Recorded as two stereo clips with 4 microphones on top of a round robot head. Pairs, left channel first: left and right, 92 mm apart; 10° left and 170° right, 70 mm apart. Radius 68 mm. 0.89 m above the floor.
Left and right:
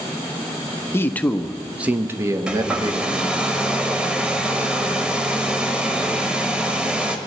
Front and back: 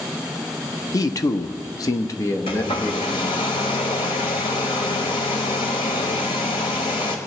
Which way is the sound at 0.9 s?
30° left.